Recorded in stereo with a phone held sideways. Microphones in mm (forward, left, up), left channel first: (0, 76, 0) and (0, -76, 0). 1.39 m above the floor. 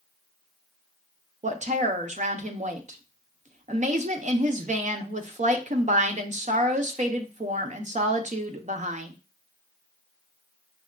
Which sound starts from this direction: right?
A woman speaking, at 1.4 s.